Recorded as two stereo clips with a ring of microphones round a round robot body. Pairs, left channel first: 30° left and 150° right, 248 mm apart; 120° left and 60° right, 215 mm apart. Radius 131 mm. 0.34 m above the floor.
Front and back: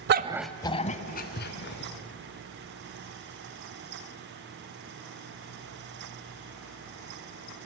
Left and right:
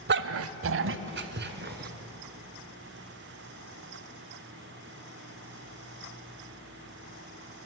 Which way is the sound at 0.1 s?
105° right.